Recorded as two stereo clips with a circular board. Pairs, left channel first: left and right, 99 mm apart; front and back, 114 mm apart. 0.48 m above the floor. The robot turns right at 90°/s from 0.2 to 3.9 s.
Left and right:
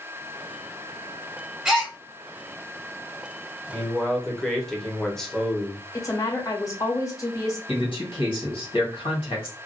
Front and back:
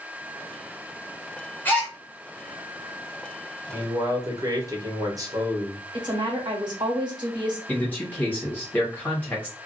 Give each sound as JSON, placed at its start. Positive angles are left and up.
{"t": 1.6, "sound": "a gasp", "azimuth_deg": -25, "distance_m": 1.2}
{"t": 3.7, "sound": "a man speaking", "azimuth_deg": 155, "distance_m": 0.8}
{"t": 5.9, "sound": "a woman speaking", "azimuth_deg": 140, "distance_m": 1.2}
{"t": 7.7, "sound": "a man speaking", "azimuth_deg": 75, "distance_m": 1.8}